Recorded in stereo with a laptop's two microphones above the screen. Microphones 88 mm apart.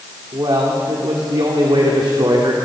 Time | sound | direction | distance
0.3 | a man speaking | 65° right (ahead or behind) | 3 m